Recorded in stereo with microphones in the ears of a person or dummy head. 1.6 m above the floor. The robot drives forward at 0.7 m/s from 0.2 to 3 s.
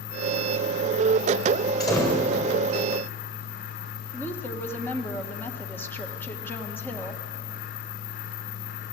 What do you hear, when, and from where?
1.8 s a door slam: 20° left (ahead or behind), 6 m
4.1 s a woman speaking: 10° left (ahead or behind), 1.7 m